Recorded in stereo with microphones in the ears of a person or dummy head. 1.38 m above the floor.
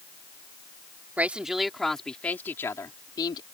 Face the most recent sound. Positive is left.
turn(degrees=25)  # may be behind; listen again after turning